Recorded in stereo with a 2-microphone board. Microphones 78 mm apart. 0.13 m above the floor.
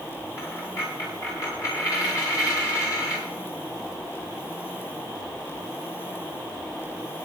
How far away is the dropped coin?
About 7.5 m.